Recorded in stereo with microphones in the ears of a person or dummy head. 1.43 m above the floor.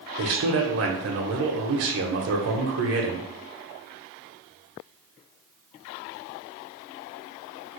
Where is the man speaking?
70° right (ahead or behind), 0.8 m.